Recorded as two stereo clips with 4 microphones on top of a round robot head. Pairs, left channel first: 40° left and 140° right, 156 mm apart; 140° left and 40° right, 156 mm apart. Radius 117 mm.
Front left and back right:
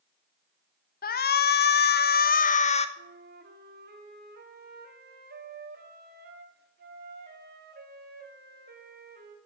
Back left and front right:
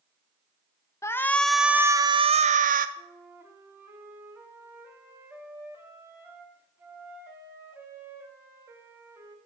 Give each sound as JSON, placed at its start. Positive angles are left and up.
{"t": 1.0, "sound": "a shout", "azimuth_deg": 65, "distance_m": 1.2}
{"t": 3.0, "sound": "a flute", "azimuth_deg": -115, "distance_m": 2.0}